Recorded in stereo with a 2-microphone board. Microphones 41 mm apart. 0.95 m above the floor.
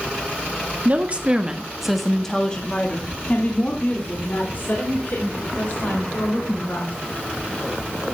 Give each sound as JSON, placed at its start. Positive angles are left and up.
{"t": 0.8, "sound": "a woman speaking", "side_deg": -40, "distance_m": 2.0}